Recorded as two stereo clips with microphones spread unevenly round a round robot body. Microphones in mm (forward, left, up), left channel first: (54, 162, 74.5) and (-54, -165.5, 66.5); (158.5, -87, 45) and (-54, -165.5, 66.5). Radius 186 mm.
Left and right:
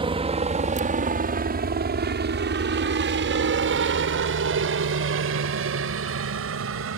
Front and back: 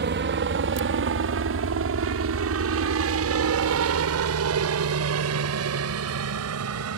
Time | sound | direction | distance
0.0 | a helicopter | 175° right | ?